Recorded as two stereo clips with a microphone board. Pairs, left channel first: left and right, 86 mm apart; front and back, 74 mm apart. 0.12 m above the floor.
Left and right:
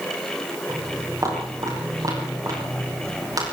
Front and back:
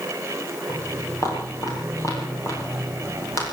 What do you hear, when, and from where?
0.7 s footsteps: 40° right, 10 m; by 3.4 s 45° right, 8 m